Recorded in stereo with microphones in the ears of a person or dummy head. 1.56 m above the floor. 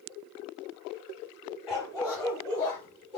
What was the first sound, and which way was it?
A dog barking, 20° left (ahead or behind).